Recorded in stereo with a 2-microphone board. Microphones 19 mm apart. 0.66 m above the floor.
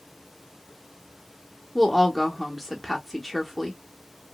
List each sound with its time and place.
1.8 s a woman speaking: 5° left (ahead or behind), 0.6 m